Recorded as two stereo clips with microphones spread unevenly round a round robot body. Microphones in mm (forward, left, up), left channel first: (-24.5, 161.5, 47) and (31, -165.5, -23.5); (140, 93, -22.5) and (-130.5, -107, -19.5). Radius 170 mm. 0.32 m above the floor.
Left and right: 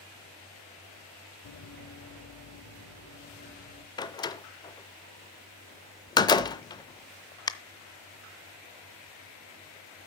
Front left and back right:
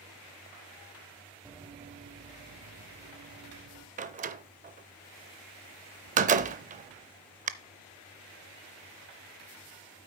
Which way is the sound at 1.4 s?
135° left.